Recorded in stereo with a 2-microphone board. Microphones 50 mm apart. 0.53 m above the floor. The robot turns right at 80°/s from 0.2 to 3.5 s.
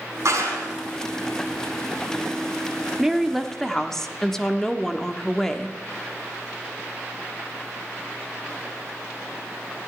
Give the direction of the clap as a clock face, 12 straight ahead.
4 o'clock.